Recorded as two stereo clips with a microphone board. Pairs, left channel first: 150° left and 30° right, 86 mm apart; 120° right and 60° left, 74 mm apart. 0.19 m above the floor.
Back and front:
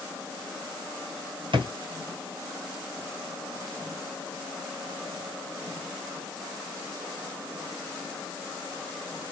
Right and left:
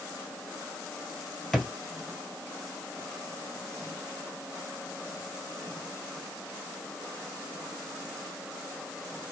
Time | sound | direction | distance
1.5 | a drawer | 35° right | 1.9 m